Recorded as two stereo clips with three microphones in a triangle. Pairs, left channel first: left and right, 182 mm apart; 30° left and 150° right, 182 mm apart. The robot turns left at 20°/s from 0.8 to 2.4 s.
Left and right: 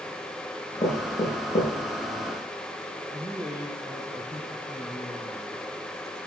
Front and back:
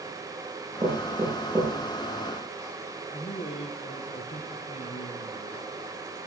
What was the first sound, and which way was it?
Knocking, 145° left.